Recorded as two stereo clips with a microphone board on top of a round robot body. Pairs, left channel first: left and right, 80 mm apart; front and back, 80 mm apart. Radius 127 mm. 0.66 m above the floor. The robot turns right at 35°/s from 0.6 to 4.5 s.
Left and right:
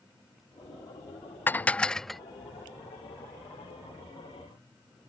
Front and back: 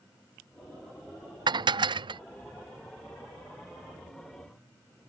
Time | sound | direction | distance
1.5 | dishes clattering | 155° left | ?